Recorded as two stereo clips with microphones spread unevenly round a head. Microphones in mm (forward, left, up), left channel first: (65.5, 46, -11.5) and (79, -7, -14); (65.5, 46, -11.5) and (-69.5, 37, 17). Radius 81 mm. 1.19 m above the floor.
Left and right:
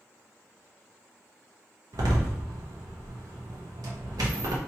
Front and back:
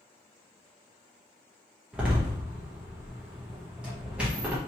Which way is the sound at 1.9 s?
90° right.